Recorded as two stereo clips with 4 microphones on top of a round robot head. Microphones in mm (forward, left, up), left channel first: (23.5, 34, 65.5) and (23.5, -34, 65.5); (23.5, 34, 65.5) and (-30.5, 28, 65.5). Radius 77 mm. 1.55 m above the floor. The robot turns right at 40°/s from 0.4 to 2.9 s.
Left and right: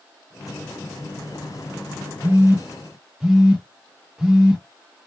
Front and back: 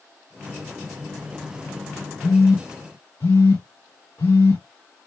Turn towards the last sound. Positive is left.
turn(degrees=-10)